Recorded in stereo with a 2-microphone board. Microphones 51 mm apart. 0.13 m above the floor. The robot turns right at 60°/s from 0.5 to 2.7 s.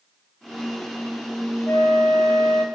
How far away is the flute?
About 0.8 m.